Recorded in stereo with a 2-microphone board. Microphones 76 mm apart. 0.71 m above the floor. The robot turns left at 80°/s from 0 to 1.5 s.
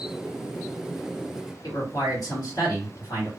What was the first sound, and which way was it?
A man speaking, 60° left (ahead or behind).